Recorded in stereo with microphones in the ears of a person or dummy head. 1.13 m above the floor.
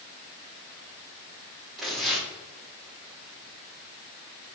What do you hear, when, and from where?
1.8 s tearing paper: 5° right (ahead or behind), 2.5 m